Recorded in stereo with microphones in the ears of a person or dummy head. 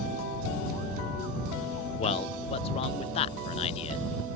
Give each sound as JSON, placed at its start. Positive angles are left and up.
{"t": 2.0, "sound": "a man speaking", "side_deg": 35}